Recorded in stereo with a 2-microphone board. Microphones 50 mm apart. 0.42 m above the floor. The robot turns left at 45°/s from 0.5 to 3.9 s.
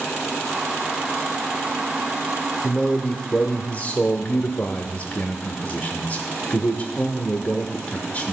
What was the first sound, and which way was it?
A man speaking, 160° left.